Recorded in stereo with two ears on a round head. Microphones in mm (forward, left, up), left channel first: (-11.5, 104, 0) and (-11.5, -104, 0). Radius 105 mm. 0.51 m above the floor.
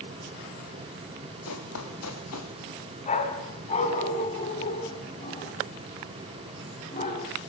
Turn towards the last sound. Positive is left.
turn(degrees=30)  # may be behind; listen again after turning